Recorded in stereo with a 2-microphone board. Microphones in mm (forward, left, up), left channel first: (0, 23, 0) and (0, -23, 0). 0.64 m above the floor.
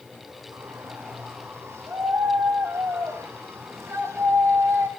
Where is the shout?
70° right (ahead or behind), 6 m; by 4.9 s 60° right (ahead or behind), 4 m.